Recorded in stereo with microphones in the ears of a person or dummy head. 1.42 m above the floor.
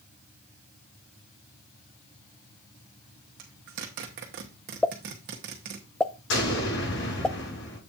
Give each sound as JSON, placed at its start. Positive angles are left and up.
{"t": 3.4, "sound": "a zipper", "side_deg": -50, "distance_m": 1.2}
{"t": 4.8, "sound": "a pop", "side_deg": 5, "distance_m": 0.5}
{"t": 6.3, "sound": "an explosion", "side_deg": 65, "distance_m": 7.0}